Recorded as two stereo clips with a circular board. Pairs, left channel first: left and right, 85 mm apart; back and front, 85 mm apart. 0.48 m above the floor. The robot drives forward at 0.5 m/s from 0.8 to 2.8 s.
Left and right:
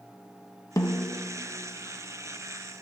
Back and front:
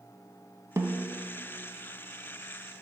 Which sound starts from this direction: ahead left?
A snare drum, at 0.8 s.